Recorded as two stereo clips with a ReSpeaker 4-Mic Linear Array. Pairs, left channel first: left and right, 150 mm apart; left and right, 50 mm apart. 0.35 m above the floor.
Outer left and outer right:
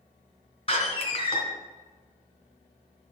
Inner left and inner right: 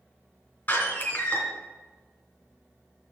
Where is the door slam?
40° left (ahead or behind), 2.5 m.